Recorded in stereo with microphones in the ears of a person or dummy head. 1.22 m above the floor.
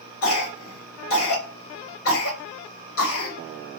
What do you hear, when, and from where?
0.2 s a cough: 50° left (ahead or behind), 1.6 m